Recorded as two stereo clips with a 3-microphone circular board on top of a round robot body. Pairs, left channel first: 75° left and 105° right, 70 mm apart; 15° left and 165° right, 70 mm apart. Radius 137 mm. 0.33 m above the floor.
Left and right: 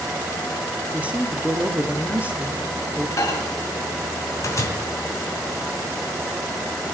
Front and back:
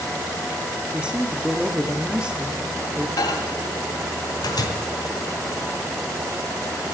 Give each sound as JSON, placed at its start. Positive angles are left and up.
{"t": 0.9, "sound": "a man speaking", "azimuth_deg": -120, "distance_m": 1.3}
{"t": 3.2, "sound": "a microwave", "azimuth_deg": 35, "distance_m": 2.5}